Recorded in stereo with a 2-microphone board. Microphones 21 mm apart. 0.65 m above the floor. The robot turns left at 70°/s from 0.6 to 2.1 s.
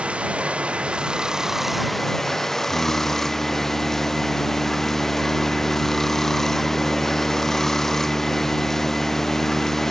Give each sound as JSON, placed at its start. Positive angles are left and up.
{"t": 0.0, "sound": "running water", "azimuth_deg": -95}
{"t": 2.6, "sound": "singing", "side_deg": 55}